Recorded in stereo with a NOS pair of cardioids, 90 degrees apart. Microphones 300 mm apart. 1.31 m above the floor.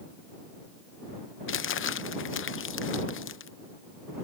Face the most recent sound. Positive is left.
turn(degrees=40)